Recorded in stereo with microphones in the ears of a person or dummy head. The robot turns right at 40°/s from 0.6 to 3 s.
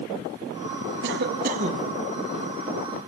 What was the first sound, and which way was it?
A cough, 60° right.